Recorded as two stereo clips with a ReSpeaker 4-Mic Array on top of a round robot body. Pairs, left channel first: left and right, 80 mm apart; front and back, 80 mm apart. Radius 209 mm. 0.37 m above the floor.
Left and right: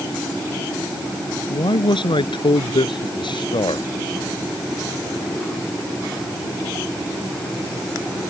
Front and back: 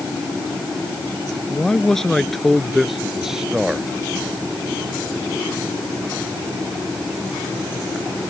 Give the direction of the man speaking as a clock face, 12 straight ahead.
9 o'clock.